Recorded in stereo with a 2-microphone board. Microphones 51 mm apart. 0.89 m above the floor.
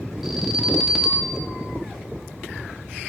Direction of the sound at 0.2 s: Centre (ahead or behind).